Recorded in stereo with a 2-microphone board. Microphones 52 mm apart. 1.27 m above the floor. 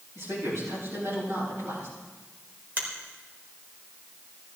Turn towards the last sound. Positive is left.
turn(degrees=-40)  # may be behind; listen again after turning